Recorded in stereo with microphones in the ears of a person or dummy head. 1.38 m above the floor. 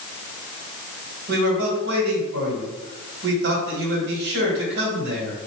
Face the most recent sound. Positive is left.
turn(degrees=-70)  # may be behind; listen again after turning